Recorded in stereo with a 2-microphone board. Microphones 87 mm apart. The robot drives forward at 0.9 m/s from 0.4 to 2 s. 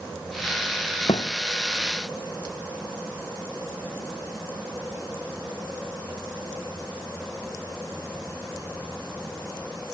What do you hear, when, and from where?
1.1 s a thud: 80° left